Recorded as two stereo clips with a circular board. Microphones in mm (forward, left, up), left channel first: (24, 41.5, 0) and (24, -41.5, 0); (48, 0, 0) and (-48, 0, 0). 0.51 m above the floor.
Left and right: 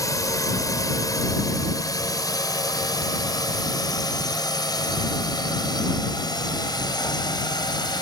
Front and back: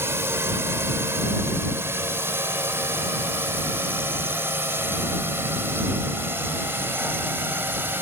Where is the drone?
120° left; by 8.0 s 115° left.